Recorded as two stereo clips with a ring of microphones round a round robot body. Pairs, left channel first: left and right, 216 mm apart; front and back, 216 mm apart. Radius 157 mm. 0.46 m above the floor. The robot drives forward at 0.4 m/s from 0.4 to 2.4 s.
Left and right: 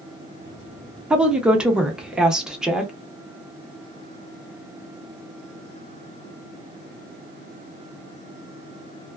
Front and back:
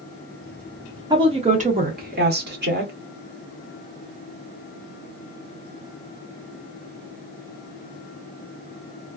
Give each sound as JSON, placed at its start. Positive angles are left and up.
{"t": 1.1, "sound": "a woman speaking", "azimuth_deg": -170, "distance_m": 0.7}